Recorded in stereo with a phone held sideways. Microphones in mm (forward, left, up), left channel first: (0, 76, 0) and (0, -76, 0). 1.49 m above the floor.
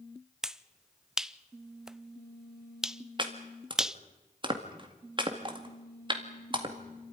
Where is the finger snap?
5° right (ahead or behind), 0.5 m.